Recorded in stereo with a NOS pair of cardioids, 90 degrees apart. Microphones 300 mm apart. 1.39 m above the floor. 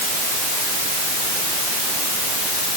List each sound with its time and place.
Only background noise.